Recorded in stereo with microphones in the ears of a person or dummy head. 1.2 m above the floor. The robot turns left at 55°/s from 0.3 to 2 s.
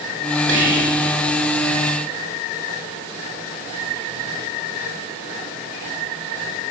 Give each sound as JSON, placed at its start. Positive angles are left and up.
{"t": 0.5, "sound": "whispering", "side_deg": -75, "distance_m": 4.0}